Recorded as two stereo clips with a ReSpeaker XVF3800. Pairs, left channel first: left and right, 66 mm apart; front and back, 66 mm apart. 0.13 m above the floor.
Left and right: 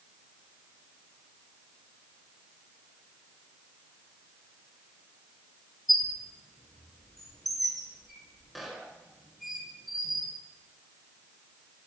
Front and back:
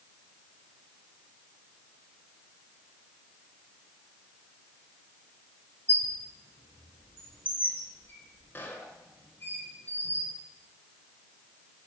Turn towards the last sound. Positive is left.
turn(degrees=0)